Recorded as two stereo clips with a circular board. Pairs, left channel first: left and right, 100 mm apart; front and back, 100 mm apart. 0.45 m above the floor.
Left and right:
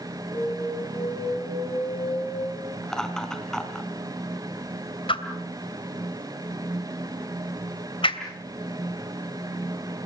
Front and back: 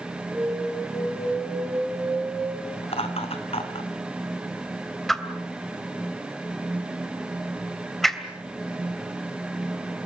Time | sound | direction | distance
0.3 | an alarm | 70° left | 6 m
2.8 | laughter | 5° left | 4 m
5.1 | a whoosh | 90° left | 2.5 m